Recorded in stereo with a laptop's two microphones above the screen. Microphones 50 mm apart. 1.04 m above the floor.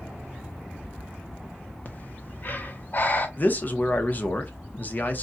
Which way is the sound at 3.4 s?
40° left (ahead or behind).